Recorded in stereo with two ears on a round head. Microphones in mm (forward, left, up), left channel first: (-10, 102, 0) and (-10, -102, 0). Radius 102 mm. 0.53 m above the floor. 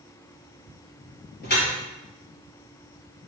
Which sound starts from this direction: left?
Dripping, at 1.4 s.